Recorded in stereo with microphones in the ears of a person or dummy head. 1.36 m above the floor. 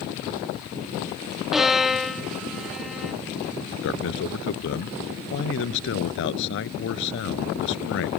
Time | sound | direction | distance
1.5 | a violin | centre (ahead or behind) | ?
3.8 | a man speaking | 65° left (ahead or behind) | ?